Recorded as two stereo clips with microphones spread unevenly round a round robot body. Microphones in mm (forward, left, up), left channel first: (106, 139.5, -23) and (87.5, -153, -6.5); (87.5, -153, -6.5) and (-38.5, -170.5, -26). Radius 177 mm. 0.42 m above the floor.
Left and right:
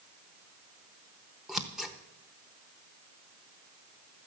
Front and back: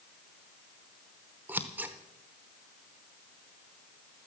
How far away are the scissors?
About 0.7 m.